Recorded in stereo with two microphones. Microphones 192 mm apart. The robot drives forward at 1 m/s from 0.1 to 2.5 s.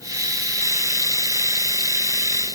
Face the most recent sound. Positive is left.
No sound to turn to.